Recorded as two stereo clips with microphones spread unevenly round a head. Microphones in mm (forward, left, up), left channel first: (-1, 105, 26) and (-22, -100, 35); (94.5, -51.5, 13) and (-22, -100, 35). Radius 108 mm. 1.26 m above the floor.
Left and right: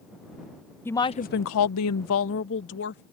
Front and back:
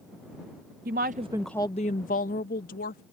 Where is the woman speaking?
165° left; by 3.0 s 45° left.